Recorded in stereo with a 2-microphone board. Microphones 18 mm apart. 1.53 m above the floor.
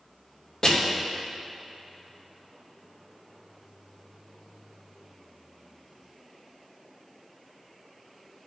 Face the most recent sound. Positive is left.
turn(degrees=45)  # may be behind; listen again after turning